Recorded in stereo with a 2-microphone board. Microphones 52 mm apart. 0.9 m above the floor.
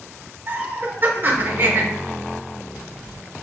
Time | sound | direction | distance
0.5 | laughter | 40° right (ahead or behind) | 1.2 m